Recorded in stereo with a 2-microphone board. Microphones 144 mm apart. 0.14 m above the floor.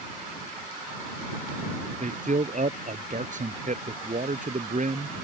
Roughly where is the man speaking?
Right.